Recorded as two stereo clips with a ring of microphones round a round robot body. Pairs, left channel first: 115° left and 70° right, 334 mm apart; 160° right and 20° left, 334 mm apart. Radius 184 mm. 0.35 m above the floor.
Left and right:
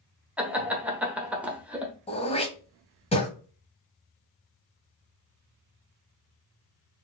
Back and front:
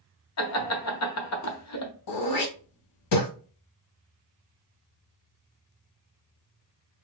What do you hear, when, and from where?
0.4 s laughter: 150° right, 1.2 m
2.1 s throat clearing: 175° right, 1.3 m